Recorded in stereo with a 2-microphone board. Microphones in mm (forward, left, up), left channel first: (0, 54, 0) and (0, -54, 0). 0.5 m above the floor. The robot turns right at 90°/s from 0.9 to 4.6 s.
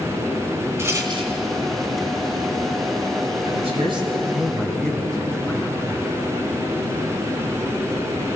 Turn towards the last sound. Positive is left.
turn(degrees=5)